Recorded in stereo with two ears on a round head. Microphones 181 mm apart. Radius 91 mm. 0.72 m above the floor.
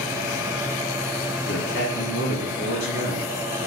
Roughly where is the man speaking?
Left.